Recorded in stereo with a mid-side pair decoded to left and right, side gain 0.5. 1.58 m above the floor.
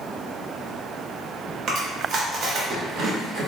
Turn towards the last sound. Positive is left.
turn(degrees=-60)